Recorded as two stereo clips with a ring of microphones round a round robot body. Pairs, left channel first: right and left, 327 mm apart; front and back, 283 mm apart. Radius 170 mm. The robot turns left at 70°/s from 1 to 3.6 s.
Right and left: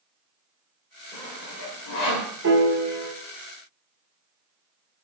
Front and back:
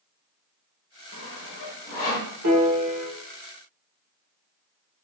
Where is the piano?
145° left, 1.3 m; by 3.1 s 100° left, 1.3 m.